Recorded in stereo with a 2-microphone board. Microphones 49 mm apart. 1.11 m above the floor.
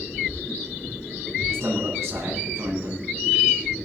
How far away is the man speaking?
About 8.5 m.